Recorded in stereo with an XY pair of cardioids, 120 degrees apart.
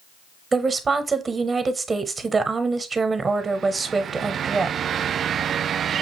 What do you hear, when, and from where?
0.5 s a woman speaking: 30° right, 0.7 m